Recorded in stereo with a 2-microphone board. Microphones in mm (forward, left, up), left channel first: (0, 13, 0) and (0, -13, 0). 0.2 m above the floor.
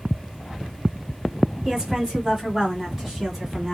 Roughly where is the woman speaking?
Right.